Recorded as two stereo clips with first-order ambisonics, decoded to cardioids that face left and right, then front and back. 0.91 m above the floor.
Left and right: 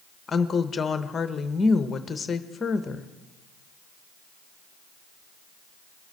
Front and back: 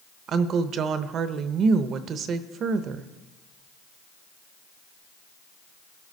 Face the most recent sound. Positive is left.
turn(degrees=150)